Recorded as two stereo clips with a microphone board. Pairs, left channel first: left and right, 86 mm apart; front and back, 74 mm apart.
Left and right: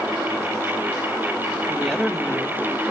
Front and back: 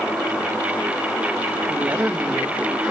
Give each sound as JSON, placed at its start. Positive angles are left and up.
{"t": 1.7, "sound": "a woman speaking", "azimuth_deg": 170, "distance_m": 0.8}